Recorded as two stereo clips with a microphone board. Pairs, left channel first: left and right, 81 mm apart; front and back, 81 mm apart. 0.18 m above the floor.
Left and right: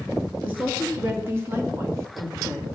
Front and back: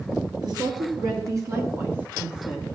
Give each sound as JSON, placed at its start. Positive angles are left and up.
{"t": 0.4, "sound": "a woman speaking", "azimuth_deg": -160, "distance_m": 3.0}